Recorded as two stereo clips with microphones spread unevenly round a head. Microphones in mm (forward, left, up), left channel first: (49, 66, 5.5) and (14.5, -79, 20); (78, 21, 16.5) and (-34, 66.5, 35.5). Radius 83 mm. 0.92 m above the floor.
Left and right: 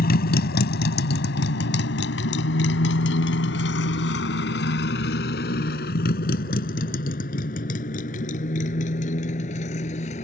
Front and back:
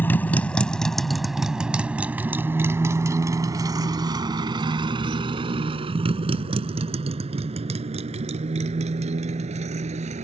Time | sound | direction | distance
0.0 | a motorcycle | 55° left | ?